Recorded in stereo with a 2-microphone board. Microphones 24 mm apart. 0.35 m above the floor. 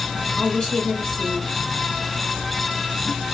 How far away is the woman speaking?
About 1.8 m.